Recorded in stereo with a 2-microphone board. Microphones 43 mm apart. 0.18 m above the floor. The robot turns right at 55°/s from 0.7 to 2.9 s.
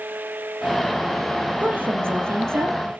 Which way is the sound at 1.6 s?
140° right.